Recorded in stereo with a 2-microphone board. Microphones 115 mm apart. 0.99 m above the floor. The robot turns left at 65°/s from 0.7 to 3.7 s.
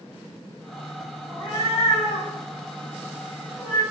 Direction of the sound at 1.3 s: 30° left (ahead or behind).